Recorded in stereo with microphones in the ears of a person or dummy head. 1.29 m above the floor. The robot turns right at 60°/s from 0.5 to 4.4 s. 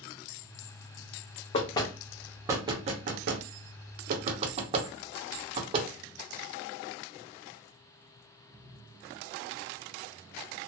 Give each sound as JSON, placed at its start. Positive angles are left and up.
{"t": 1.5, "sound": "knocking", "side_deg": 35, "distance_m": 0.7}